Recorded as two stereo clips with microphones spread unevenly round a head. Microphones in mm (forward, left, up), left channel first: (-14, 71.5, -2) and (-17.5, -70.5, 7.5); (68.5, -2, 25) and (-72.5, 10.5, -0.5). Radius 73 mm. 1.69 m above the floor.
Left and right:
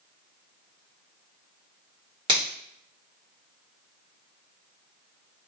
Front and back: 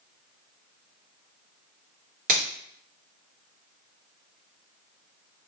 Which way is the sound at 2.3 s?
150° right.